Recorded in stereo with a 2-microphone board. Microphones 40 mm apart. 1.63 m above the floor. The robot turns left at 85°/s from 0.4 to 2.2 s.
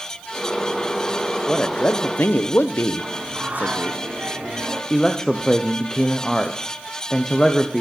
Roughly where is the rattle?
I don't hear a rattle.